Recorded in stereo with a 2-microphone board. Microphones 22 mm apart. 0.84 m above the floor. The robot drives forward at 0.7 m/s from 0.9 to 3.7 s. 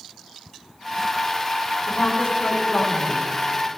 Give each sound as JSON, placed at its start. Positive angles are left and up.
{"t": 1.9, "sound": "a woman speaking", "side_deg": 75, "distance_m": 6.0}